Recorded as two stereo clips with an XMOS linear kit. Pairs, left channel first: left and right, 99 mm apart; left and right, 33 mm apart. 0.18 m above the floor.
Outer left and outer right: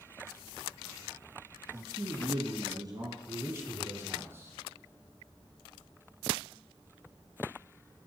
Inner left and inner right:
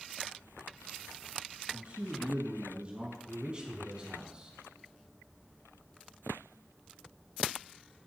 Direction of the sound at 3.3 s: 25° right (ahead or behind).